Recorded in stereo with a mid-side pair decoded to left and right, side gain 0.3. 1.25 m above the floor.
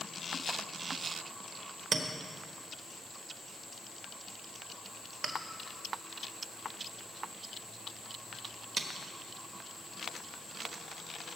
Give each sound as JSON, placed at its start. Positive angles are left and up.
{"t": 1.9, "sound": "a clink", "azimuth_deg": -65, "distance_m": 1.3}